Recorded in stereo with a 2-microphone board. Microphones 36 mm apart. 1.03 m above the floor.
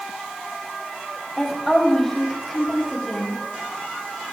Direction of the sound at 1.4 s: 10° left (ahead or behind).